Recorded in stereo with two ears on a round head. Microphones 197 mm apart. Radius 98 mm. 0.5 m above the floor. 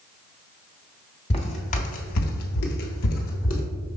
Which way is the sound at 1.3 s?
25° left (ahead or behind).